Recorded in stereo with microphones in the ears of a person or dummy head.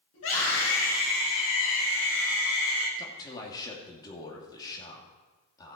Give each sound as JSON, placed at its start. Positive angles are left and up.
{"t": 0.1, "sound": "a scream", "side_deg": 75, "distance_m": 7.0}
{"t": 3.0, "sound": "a man speaking", "side_deg": 20, "distance_m": 2.5}